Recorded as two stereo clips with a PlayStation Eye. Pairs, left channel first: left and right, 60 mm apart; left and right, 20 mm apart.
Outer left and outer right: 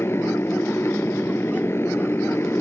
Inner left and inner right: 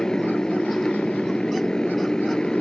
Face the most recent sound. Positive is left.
turn(degrees=45)  # may be behind; listen again after turning